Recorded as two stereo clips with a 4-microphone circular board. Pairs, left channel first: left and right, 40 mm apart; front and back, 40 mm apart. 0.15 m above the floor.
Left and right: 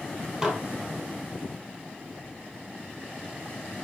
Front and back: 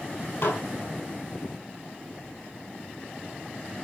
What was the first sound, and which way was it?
Dishes clattering, 20° right.